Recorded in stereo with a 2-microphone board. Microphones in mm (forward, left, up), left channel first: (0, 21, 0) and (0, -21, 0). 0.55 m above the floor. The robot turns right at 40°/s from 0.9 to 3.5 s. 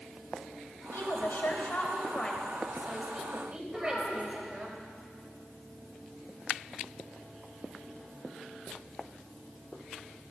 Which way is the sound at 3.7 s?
25° left (ahead or behind).